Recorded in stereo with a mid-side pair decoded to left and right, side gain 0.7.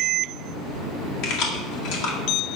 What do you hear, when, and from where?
1.2 s keys jangling: 65° left, 1.8 m